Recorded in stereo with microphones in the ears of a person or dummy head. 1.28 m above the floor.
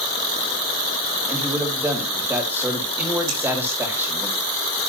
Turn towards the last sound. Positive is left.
turn(degrees=-85)